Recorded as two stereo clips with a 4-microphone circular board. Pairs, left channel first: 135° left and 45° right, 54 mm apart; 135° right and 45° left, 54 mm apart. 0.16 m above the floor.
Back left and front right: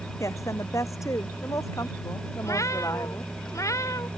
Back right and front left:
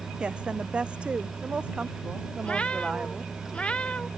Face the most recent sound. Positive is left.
turn(degrees=155)